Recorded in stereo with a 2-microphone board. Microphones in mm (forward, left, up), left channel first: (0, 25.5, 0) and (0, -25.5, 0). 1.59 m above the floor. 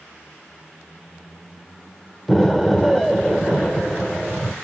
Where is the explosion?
5° left (ahead or behind), 0.9 m.